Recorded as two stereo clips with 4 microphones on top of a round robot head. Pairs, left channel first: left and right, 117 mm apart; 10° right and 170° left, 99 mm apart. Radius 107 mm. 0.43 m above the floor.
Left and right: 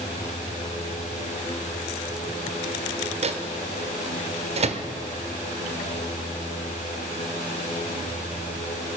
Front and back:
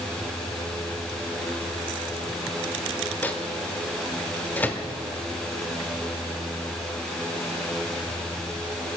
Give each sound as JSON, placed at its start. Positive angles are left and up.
{"t": 3.2, "sound": "a microwave", "azimuth_deg": -85, "distance_m": 1.1}